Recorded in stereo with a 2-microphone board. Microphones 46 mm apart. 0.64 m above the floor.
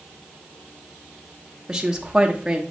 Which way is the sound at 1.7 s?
15° right (ahead or behind).